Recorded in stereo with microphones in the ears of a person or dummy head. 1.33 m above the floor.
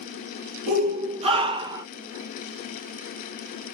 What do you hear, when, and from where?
0.7 s a shout: 40° right (ahead or behind), 1.3 m; by 1.9 s 15° right (ahead or behind), 0.7 m